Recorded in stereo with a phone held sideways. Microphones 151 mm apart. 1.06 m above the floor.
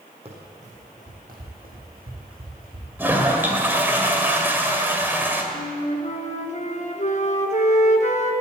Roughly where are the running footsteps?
Right.